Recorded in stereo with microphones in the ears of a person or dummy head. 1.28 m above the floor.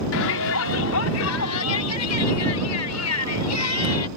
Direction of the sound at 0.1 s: 70° left (ahead or behind).